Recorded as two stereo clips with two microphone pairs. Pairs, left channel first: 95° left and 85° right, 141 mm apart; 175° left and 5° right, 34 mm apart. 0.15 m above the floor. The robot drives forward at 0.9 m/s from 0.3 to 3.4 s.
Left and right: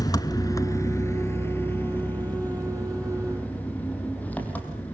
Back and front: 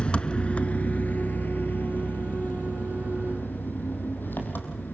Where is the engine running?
140° left, 1.0 m; by 5.0 s 170° left, 3.5 m.